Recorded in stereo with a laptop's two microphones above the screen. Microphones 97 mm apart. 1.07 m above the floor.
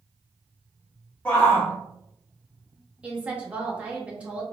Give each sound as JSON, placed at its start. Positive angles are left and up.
{"t": 1.2, "sound": "a shout", "side_deg": 10, "distance_m": 0.5}
{"t": 3.0, "sound": "a woman speaking", "side_deg": -10, "distance_m": 1.2}